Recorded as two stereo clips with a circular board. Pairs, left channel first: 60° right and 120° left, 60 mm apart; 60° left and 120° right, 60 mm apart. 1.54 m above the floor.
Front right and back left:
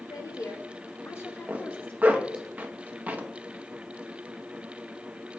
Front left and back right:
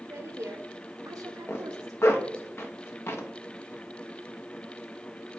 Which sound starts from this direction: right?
A woman speaking, at 0.1 s.